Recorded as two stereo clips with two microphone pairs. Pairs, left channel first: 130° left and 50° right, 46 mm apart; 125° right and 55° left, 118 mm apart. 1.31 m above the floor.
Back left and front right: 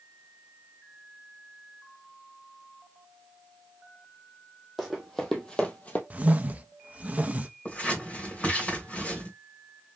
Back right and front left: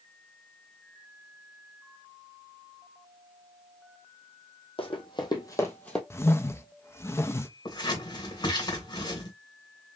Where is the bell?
No bell in this recording.